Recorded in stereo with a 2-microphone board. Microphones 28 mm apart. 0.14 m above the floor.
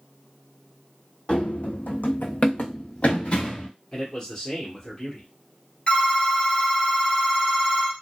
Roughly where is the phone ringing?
Left.